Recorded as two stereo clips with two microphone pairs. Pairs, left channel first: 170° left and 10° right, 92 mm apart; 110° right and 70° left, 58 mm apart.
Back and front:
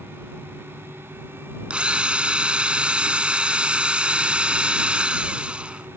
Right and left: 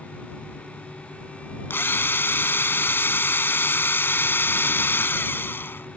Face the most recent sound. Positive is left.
turn(degrees=-80)